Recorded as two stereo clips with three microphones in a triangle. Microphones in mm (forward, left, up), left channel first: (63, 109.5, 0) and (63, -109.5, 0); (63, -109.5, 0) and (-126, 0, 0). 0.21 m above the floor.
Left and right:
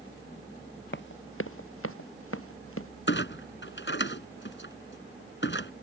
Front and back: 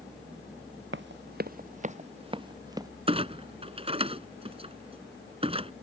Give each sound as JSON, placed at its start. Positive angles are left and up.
{"t": 0.9, "sound": "running footsteps", "azimuth_deg": 120}
{"t": 3.1, "sound": "a clunk", "azimuth_deg": 90}